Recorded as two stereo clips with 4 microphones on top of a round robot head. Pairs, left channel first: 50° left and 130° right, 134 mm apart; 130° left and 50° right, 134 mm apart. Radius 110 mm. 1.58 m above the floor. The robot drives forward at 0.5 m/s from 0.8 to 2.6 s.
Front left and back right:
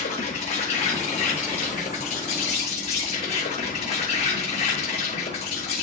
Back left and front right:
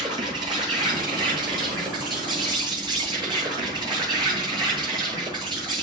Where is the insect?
10° left, 10 m.